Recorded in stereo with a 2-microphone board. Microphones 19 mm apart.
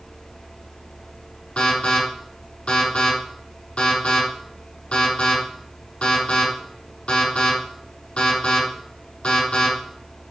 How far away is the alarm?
About 5 m.